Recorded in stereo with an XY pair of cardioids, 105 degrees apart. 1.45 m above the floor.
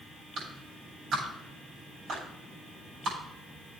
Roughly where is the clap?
Ahead right.